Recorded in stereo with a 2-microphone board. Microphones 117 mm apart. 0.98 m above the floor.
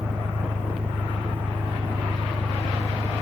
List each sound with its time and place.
0.0 s an engine running: 75° right (ahead or behind)